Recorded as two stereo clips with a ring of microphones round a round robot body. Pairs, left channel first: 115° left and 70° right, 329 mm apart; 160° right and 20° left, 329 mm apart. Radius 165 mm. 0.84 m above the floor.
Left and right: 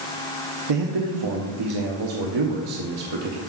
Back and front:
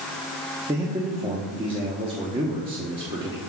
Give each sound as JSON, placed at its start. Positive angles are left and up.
{"t": 0.7, "sound": "a man speaking", "azimuth_deg": -55, "distance_m": 1.1}